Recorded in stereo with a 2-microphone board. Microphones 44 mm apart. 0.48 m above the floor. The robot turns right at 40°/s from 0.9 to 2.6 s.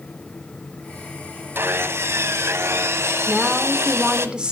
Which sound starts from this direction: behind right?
Sawing, at 1.6 s.